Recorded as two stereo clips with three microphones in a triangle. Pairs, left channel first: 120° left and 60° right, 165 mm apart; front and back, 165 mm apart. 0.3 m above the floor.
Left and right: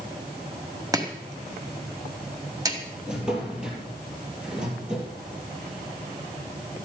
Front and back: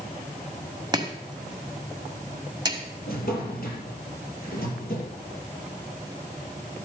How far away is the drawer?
About 3.5 m.